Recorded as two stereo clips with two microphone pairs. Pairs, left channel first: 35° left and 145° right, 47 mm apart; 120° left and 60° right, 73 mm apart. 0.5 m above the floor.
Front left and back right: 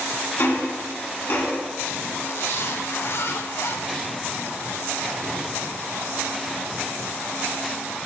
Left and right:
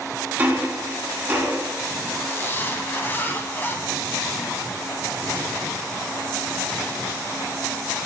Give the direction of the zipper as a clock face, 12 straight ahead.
10 o'clock.